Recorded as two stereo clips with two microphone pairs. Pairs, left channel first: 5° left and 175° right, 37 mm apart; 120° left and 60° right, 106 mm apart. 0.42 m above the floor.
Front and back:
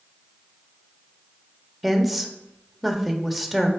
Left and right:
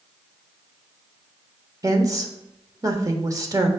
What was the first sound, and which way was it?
A woman speaking, 80° right.